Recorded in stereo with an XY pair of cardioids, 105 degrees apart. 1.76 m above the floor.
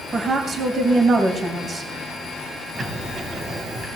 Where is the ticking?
40° right, 3 m.